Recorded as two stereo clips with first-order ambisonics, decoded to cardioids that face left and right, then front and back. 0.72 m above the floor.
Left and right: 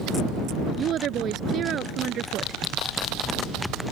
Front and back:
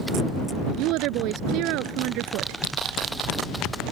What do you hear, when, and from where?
0.8 s a woman speaking: 145° right